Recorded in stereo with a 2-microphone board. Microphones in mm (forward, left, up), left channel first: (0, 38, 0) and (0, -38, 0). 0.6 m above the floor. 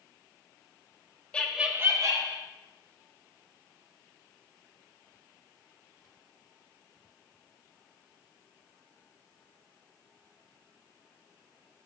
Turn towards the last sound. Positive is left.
turn(degrees=-55)  # may be behind; listen again after turning